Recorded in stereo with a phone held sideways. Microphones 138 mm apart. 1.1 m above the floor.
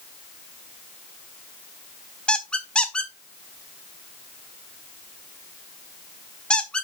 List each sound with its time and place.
2.3 s a squeak: 5° left (ahead or behind), 1.2 m